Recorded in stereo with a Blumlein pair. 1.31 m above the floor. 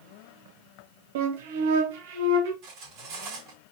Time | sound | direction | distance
1.1 | a flute | 50° right | 1.0 m
2.6 | cutlery clinking | 35° right | 3 m